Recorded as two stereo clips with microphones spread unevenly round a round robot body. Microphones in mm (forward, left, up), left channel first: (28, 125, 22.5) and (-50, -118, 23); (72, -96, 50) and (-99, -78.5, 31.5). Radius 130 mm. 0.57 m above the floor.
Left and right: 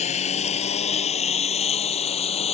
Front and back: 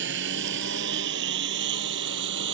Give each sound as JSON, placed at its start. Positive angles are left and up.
{"t": 0.0, "sound": "a lawn mower", "azimuth_deg": 140}